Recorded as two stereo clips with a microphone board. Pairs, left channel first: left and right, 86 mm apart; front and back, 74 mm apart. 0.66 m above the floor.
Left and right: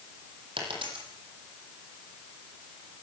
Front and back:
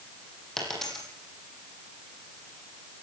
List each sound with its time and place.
0.6 s a dropped coin: 85° right, 10 m